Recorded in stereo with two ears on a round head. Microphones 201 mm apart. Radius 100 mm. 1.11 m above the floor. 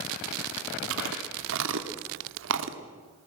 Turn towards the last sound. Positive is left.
turn(degrees=-60)  # may be behind; listen again after turning